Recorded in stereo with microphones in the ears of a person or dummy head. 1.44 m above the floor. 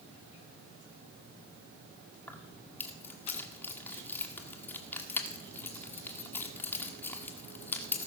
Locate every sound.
2.3 s keys jangling: 10° left (ahead or behind), 2 m